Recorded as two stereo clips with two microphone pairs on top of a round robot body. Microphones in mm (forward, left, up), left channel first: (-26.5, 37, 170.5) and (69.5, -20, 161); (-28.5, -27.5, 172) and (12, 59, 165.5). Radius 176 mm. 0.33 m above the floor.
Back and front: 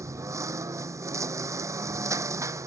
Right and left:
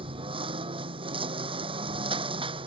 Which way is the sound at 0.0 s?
35° left.